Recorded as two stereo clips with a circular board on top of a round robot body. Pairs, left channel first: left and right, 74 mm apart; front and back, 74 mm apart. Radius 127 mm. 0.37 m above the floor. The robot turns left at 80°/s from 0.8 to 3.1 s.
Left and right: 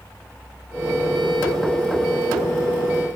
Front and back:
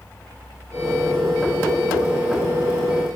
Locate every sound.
Only background noise.